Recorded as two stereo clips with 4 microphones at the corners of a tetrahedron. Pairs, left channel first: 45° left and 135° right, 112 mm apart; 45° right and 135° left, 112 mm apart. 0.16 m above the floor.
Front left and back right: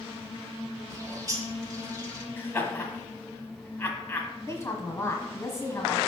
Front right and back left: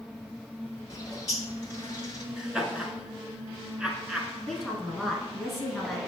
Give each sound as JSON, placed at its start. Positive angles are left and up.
{"t": 0.9, "sound": "a bird", "azimuth_deg": -85, "distance_m": 0.8}
{"t": 2.4, "sound": "laughter", "azimuth_deg": 65, "distance_m": 1.0}
{"t": 4.5, "sound": "a woman speaking", "azimuth_deg": 40, "distance_m": 1.2}